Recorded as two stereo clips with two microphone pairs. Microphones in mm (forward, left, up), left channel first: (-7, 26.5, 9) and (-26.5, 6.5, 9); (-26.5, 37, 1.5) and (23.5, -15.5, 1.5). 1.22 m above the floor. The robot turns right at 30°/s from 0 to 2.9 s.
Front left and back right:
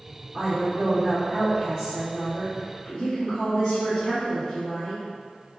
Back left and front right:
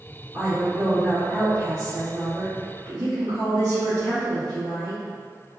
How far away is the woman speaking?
About 0.9 m.